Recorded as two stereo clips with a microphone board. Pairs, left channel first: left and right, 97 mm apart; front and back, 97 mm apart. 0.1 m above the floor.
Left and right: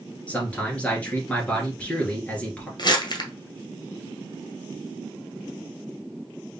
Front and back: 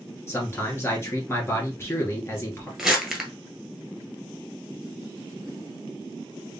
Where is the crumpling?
95° left, 1.3 m.